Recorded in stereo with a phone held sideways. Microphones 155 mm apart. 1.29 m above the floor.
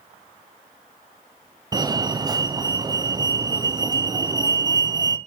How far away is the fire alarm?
About 1.0 m.